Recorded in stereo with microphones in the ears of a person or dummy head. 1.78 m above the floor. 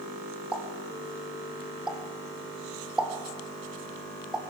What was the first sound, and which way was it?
A pop, 5° right (ahead or behind).